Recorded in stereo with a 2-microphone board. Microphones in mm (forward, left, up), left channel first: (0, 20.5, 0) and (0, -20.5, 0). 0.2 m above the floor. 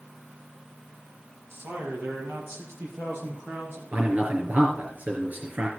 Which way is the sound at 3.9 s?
40° right (ahead or behind).